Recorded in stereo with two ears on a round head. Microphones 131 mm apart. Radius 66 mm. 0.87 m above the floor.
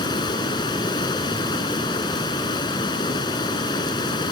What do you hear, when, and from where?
0.0 s running water: 30° left (ahead or behind)